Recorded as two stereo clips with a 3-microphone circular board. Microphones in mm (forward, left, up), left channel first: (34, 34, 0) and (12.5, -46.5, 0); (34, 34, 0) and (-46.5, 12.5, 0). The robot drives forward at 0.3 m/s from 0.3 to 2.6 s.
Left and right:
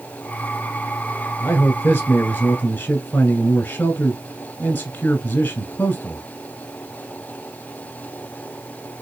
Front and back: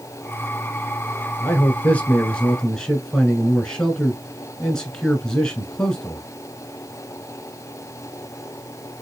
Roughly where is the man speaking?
Ahead left.